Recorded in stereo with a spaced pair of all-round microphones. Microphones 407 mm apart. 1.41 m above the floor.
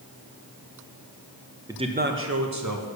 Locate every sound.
1.7 s a man speaking: 10° right (ahead or behind), 0.8 m; by 2.9 s 50° right (ahead or behind), 1.3 m